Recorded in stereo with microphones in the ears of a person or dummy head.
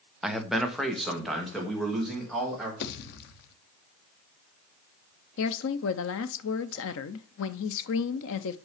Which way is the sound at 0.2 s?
Centre (ahead or behind).